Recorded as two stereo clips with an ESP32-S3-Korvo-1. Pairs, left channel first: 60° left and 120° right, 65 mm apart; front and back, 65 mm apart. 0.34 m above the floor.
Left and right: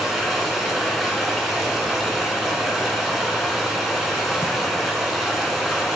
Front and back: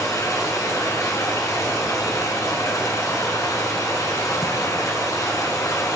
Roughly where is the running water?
Ahead right.